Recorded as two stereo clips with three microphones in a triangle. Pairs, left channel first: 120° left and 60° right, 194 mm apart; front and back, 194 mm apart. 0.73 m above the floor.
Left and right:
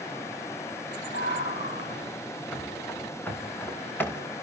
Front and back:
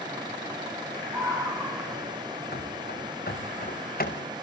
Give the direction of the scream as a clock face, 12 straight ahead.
9 o'clock.